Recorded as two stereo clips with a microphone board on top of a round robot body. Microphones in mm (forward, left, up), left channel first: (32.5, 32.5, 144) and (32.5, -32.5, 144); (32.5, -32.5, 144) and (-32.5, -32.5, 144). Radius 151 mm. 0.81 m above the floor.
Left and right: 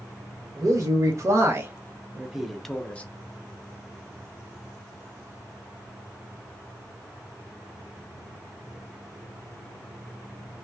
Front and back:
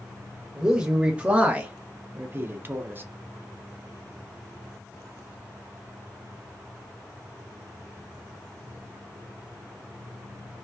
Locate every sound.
0.6 s a man speaking: 105° right, 1.4 m; by 3.0 s 145° left, 0.9 m